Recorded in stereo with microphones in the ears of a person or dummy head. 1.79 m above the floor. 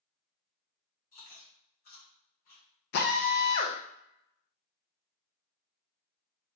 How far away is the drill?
About 0.8 m.